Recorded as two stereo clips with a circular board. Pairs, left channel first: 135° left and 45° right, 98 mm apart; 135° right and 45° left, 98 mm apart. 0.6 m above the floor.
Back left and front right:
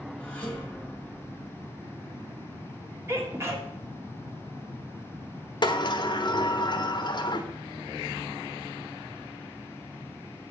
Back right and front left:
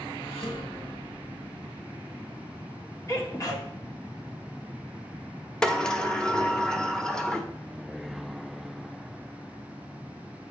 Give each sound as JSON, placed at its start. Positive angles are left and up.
{"t": 0.2, "sound": "dishes clattering", "azimuth_deg": -145, "distance_m": 2.0}
{"t": 3.1, "sound": "a sneeze", "azimuth_deg": -95, "distance_m": 1.6}
{"t": 5.6, "sound": "a sliding door", "azimuth_deg": 145, "distance_m": 0.9}